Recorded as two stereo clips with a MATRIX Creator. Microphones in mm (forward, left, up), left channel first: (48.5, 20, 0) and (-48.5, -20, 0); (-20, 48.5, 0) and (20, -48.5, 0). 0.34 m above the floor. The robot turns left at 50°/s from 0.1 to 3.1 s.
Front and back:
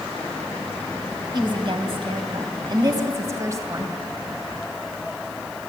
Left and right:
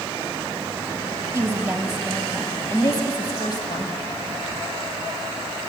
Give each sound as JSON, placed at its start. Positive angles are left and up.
{"t": 1.3, "sound": "a woman speaking", "azimuth_deg": -125, "distance_m": 2.0}